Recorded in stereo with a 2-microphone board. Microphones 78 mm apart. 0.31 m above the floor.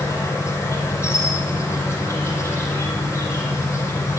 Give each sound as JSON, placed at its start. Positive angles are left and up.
{"t": 0.0, "sound": "an insect", "side_deg": 30, "distance_m": 5.5}